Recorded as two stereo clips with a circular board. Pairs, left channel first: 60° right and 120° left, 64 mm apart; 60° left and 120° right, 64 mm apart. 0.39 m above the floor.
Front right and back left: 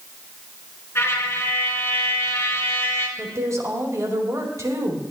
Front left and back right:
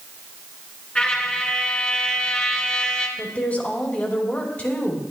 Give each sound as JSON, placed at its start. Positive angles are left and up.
{"t": 0.9, "sound": "a trumpet", "azimuth_deg": -10, "distance_m": 2.0}
{"t": 3.2, "sound": "a woman speaking", "azimuth_deg": 120, "distance_m": 2.5}